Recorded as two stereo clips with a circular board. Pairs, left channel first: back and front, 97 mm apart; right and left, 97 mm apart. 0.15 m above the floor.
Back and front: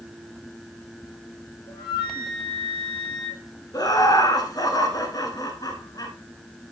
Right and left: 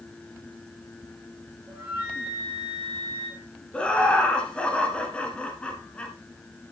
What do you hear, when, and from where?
1.7 s a flute: 160° left, 5 m
3.7 s laughter: 165° right, 1.3 m